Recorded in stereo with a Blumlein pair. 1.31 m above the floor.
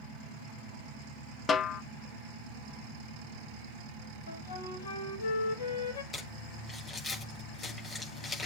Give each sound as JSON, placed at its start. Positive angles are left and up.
{"t": 1.5, "sound": "a snare drum", "azimuth_deg": 15, "distance_m": 0.6}
{"t": 4.3, "sound": "a flute", "azimuth_deg": 70, "distance_m": 1.7}
{"t": 6.1, "sound": "crumpling", "azimuth_deg": 15, "distance_m": 6.0}